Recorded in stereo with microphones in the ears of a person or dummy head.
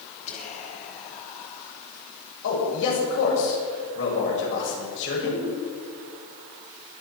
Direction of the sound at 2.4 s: 75° left (ahead or behind).